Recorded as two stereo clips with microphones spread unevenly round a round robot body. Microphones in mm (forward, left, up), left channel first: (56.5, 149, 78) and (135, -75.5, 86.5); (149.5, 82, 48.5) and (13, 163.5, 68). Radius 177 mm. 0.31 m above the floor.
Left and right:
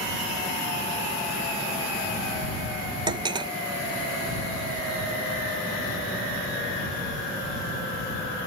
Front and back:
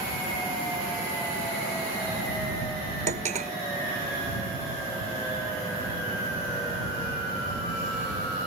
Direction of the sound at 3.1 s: 145° right.